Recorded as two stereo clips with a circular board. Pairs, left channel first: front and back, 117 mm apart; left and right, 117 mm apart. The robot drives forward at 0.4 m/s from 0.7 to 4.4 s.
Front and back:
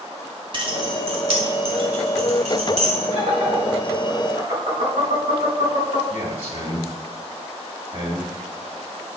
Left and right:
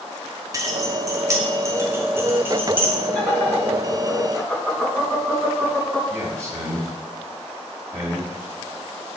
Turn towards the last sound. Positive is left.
turn(degrees=-150)